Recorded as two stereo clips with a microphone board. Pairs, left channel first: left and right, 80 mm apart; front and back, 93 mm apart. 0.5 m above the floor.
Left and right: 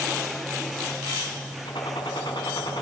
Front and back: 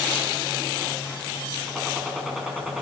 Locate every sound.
1.6 s a gunshot: 95° left, 5 m